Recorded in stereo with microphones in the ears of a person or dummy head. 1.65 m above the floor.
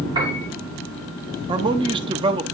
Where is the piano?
20° right (ahead or behind), 3 m.